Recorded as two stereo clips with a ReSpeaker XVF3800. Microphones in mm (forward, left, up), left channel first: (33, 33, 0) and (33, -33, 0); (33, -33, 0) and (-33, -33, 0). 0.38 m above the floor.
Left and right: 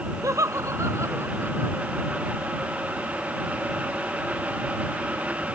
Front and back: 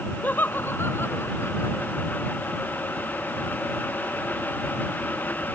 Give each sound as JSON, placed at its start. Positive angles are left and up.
{"t": 0.2, "sound": "laughter", "azimuth_deg": -60}